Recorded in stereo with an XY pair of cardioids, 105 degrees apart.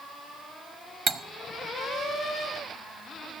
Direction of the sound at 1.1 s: 40° right.